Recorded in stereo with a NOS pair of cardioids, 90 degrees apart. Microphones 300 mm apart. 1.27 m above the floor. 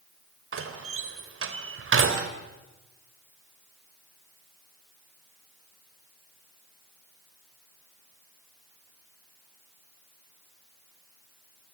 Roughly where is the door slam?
Ahead right.